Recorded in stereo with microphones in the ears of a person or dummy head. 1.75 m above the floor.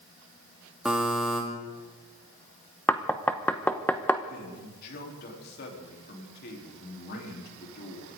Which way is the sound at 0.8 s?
5° right (ahead or behind).